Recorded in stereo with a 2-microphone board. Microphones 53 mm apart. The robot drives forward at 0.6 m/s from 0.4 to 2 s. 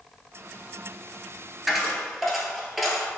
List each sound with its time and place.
1.7 s a dropped coin: centre (ahead or behind), 0.8 m